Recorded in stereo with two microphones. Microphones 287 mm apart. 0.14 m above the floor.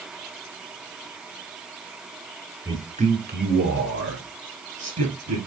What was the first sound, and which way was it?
A man speaking, 10° right (ahead or behind).